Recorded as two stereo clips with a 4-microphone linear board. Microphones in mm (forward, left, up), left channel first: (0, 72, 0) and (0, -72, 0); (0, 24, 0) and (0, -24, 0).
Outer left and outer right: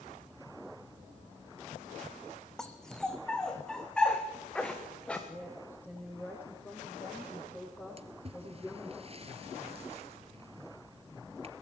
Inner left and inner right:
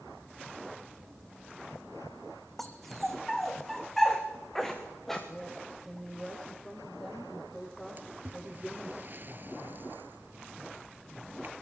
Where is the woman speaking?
15° left (ahead or behind), 7 m.